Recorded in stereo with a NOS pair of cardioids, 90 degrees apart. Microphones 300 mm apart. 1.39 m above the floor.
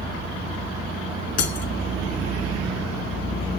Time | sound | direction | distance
1.4 | breaking glass | 60° left | 2.5 m